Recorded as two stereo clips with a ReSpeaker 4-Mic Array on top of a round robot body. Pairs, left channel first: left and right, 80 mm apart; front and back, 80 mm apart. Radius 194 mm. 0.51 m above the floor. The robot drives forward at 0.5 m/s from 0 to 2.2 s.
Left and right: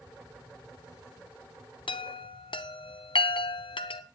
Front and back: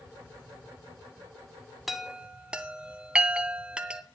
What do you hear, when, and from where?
1.9 s a chime: 90° left, 0.9 m; by 4.0 s 105° left, 0.9 m